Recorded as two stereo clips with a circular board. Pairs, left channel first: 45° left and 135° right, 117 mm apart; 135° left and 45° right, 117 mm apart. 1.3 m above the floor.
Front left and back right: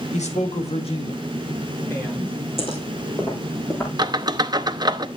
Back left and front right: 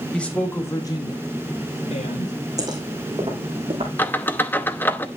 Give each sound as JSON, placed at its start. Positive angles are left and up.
{"t": 0.1, "sound": "a man speaking", "azimuth_deg": 55, "distance_m": 2.0}
{"t": 2.6, "sound": "footsteps", "azimuth_deg": 10, "distance_m": 4.0}
{"t": 4.0, "sound": "a squeak", "azimuth_deg": -160, "distance_m": 0.7}